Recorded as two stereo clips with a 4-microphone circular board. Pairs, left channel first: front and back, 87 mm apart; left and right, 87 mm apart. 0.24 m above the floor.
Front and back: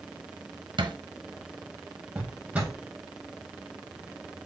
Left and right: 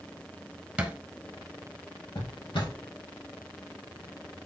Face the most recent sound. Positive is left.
turn(degrees=105)